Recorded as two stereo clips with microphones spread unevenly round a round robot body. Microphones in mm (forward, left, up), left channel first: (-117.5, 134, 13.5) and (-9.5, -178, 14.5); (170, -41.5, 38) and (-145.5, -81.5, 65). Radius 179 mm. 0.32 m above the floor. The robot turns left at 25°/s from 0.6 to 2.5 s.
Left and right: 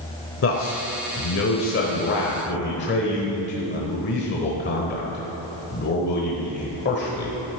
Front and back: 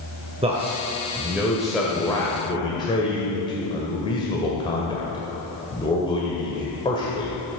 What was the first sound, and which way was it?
A man speaking, 120° left.